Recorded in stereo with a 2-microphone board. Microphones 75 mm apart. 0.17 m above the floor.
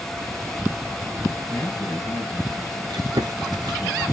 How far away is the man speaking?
About 3 m.